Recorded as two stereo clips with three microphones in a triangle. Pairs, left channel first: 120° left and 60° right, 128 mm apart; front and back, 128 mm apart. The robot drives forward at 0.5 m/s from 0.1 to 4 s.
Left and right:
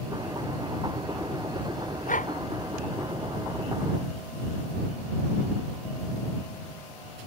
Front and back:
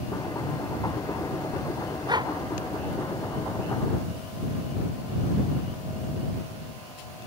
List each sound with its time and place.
2.1 s a dog barking: 125° left